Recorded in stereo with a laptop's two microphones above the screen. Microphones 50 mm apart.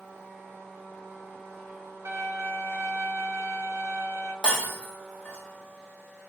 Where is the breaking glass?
20° left (ahead or behind), 1.0 m.